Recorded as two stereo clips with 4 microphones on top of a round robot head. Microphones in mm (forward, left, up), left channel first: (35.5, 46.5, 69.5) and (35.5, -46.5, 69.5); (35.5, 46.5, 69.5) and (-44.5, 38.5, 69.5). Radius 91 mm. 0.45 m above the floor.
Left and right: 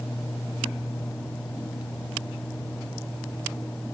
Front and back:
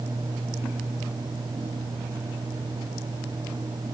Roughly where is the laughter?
No laughter in this recording.